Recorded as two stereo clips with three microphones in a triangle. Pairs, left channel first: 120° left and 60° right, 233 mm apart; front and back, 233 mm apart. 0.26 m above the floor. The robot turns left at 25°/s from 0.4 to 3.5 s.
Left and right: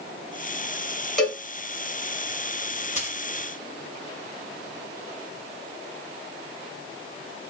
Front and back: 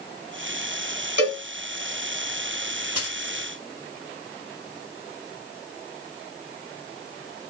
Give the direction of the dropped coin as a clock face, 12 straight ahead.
6 o'clock.